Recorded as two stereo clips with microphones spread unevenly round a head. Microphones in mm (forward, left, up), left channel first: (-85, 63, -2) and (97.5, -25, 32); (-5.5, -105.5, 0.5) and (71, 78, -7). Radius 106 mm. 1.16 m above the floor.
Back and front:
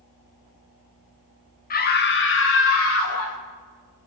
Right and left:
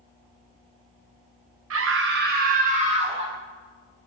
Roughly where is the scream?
Left.